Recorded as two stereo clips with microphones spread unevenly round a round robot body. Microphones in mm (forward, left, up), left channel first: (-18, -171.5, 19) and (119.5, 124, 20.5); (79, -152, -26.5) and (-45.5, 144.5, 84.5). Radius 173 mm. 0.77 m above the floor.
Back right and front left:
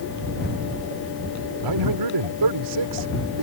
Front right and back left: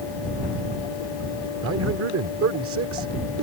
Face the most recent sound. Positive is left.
turn(degrees=60)